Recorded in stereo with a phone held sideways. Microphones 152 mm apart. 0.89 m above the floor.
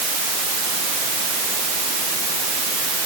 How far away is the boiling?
I don't hear boiling.